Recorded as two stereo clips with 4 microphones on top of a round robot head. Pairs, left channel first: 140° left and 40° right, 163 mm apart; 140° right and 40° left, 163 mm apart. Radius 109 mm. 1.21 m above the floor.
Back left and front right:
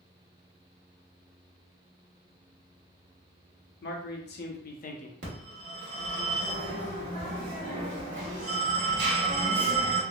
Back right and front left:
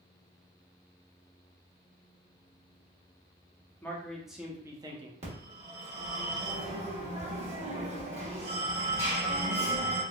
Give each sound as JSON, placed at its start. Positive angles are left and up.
{"t": 3.8, "sound": "a man speaking", "azimuth_deg": 135, "distance_m": 1.0}
{"t": 5.2, "sound": "a phone ringing", "azimuth_deg": -15, "distance_m": 1.4}